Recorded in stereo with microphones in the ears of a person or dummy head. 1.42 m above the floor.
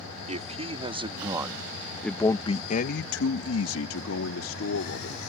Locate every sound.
0.3 s a man speaking: 25° right (ahead or behind); by 5.2 s 65° left (ahead or behind)